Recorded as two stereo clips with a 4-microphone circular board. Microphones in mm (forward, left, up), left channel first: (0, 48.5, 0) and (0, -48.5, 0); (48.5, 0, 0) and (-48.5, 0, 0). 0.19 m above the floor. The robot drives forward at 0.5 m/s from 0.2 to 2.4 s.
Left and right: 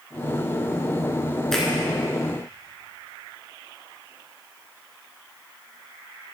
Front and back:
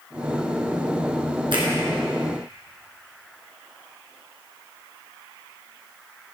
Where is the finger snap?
175° left, 2.5 m.